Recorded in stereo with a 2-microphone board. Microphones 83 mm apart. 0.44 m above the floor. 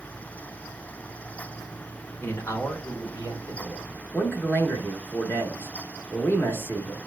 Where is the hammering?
I don't hear hammering.